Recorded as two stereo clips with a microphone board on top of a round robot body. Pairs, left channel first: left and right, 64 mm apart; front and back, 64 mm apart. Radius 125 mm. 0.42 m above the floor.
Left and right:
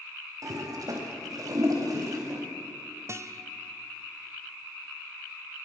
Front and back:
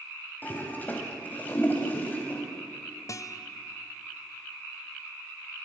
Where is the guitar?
40° right, 1.1 m.